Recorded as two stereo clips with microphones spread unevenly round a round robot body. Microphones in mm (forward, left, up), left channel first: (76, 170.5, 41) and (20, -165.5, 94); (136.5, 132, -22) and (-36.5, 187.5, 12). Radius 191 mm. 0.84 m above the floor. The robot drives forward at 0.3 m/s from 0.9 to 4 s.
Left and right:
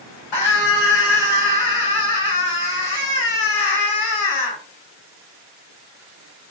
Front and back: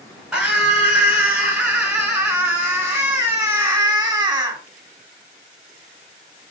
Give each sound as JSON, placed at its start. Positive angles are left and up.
{"t": 0.3, "sound": "a scream", "azimuth_deg": 75, "distance_m": 3.0}